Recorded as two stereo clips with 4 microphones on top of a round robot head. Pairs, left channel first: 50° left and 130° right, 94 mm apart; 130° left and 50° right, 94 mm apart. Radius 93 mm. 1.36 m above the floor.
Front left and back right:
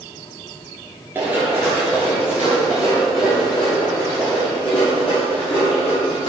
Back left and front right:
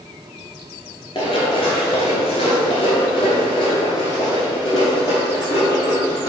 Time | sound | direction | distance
1.1 | running footsteps | 165° left | 1.4 m